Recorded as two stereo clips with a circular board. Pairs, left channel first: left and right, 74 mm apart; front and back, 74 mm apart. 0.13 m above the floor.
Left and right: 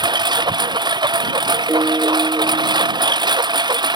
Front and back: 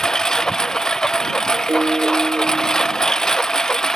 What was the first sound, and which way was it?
A lawn mower, 80° right.